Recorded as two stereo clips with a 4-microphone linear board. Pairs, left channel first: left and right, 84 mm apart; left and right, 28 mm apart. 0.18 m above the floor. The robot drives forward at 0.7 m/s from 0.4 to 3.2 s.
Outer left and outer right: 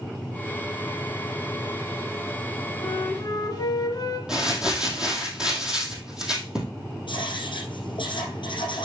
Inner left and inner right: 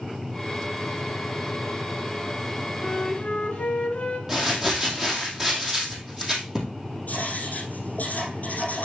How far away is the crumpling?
About 2.5 m.